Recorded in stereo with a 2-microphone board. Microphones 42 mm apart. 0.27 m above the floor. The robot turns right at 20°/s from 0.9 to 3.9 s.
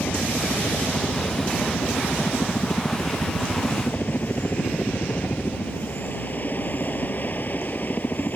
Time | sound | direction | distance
0.0 | a helicopter | 75° left | ?